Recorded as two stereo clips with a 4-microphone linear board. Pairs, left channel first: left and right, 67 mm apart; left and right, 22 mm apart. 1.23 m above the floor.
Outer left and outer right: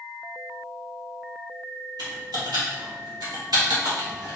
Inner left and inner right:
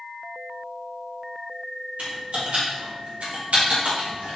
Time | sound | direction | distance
2.0 | typing on a keyboard | 85° right | 1.9 m